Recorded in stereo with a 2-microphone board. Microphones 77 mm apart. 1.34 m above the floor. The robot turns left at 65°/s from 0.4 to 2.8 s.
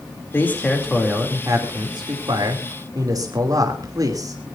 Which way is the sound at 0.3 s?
30° left.